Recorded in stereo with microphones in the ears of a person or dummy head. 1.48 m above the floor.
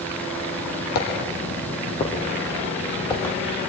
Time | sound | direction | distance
0.9 | footsteps | 50° left (ahead or behind) | 3 m